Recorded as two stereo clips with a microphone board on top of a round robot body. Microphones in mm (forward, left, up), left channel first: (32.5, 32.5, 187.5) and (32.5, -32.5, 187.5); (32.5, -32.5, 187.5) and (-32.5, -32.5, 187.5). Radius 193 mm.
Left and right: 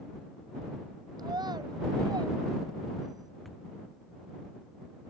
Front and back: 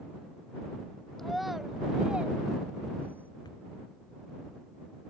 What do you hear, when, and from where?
1.2 s a child speaking: 85° right; by 3.3 s 120° right
3.5 s a thud: straight ahead